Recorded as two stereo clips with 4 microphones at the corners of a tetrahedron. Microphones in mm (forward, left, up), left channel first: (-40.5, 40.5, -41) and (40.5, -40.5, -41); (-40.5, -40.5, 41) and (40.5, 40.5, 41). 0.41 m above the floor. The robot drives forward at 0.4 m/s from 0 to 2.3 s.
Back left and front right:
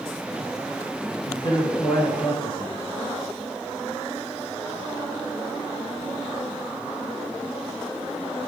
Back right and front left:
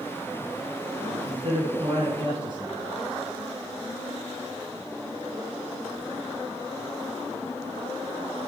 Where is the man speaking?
85° left, 5 m; by 2.8 s 90° left, 5 m.